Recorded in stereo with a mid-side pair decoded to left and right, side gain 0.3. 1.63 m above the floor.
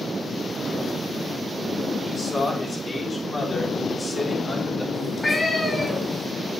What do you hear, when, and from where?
2.0 s a man speaking: 40° left, 4.5 m; by 4.8 s 10° left, 3.5 m
4.9 s a cat meowing: 35° left, 5.5 m